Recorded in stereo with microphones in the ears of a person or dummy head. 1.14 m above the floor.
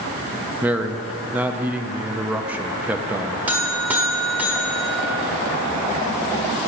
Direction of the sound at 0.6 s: 5° right (ahead or behind).